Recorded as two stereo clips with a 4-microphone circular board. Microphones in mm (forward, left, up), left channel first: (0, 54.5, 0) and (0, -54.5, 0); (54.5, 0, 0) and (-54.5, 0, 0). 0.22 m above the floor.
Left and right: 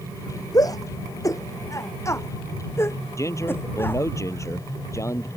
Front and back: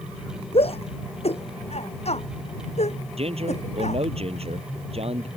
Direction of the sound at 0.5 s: 30° left.